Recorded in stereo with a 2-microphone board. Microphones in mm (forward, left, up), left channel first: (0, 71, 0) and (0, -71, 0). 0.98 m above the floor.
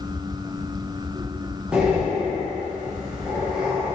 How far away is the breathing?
About 0.8 m.